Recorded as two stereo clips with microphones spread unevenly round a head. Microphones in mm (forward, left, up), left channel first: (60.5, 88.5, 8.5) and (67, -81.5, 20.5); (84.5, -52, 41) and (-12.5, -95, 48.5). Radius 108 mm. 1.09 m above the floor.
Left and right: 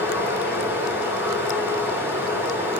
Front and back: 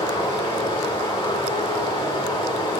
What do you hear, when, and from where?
0.0 s running water: 10° right, 3.5 m